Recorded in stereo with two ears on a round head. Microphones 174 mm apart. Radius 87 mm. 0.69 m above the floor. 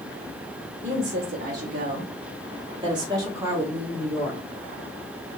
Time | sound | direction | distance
0.8 | a woman speaking | 50° right (ahead or behind) | 1.7 m